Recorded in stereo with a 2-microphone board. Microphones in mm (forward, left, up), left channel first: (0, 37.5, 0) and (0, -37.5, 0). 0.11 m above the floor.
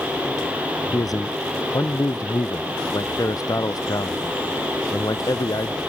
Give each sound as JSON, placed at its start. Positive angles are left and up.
{"t": 0.9, "sound": "a man speaking", "side_deg": 55}